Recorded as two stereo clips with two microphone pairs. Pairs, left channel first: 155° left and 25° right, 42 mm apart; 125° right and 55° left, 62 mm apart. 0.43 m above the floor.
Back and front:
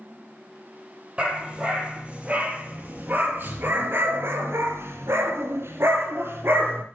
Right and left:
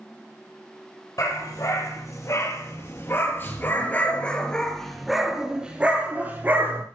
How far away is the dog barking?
About 5 m.